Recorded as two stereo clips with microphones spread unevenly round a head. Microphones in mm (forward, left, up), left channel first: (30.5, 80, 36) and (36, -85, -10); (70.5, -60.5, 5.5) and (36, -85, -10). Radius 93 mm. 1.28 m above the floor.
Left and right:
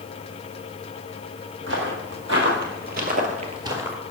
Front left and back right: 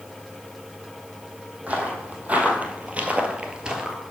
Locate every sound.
1.7 s footsteps: 85° right, 2.5 m; by 4.0 s 75° left, 1.2 m